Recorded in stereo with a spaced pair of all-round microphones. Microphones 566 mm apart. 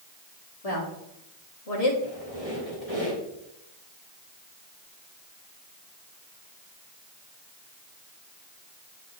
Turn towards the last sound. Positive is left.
turn(degrees=70)  # may be behind; listen again after turning